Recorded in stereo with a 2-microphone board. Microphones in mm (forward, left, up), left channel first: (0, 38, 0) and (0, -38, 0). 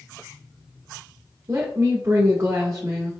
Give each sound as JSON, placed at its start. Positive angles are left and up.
{"t": 1.5, "sound": "a woman speaking", "side_deg": -45, "distance_m": 0.9}